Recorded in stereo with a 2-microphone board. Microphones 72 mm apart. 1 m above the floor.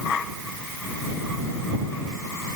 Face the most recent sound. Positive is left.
No sound to turn to.